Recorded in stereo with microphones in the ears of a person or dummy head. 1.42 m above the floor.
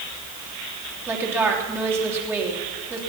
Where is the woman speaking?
20° right (ahead or behind), 3 m.